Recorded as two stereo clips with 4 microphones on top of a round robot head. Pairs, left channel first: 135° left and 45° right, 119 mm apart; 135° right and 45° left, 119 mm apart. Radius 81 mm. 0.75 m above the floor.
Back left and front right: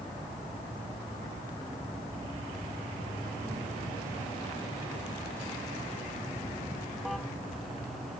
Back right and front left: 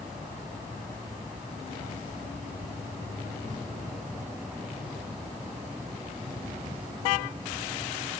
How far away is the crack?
No crack in this recording.